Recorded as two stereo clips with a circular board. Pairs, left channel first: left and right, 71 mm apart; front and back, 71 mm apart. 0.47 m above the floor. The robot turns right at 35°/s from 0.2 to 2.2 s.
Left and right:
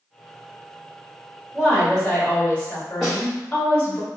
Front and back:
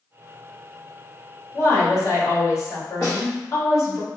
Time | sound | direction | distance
1.5 | a woman speaking | 5° right | 1.8 m
3.0 | a snare drum | 10° right | 1.9 m